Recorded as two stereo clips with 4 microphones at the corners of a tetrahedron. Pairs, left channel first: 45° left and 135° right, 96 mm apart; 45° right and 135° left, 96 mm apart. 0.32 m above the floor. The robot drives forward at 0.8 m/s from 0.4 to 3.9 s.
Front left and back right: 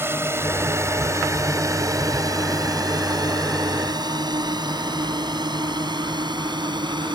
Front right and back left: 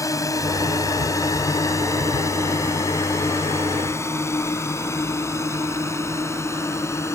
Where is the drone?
80° right; by 7.1 s 100° right.